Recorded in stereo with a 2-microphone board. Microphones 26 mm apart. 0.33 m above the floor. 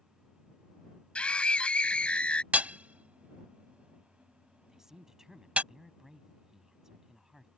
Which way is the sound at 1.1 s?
45° left (ahead or behind).